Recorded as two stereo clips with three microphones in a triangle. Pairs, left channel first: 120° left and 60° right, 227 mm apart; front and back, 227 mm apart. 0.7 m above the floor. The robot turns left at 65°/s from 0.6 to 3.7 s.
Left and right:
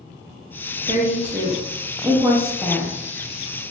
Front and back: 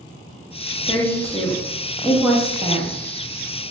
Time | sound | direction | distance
0.9 | a woman speaking | 30° right | 0.7 m